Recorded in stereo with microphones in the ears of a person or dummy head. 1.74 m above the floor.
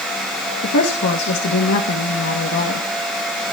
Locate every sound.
0.6 s a woman speaking: 65° left (ahead or behind), 2 m